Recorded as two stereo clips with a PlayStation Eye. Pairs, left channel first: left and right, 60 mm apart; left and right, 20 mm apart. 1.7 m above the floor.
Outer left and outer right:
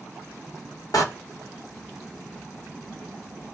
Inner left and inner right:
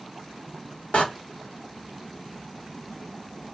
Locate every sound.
0.9 s a door slam: 70° left (ahead or behind), 2 m